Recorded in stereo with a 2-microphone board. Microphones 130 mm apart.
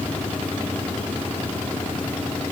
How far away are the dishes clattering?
I don't hear dishes clattering.